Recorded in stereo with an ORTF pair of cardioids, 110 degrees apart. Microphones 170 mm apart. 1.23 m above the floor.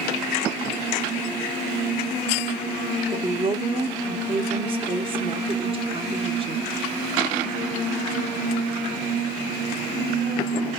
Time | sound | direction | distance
3.1 | a woman speaking | 30° right | 0.8 m